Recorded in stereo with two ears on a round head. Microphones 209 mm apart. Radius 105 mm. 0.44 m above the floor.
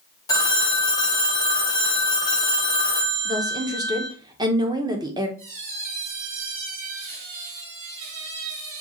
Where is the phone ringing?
15° left (ahead or behind), 1.4 m.